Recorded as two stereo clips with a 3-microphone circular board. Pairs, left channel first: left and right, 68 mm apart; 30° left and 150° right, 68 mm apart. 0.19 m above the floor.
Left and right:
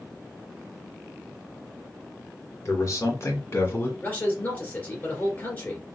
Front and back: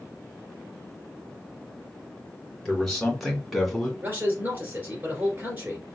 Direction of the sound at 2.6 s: 115° left.